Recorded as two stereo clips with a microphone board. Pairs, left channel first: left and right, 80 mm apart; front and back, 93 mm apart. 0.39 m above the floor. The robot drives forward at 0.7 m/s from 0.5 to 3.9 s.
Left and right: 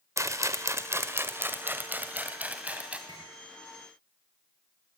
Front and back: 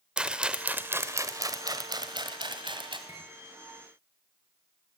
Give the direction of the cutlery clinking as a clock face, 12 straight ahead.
4 o'clock.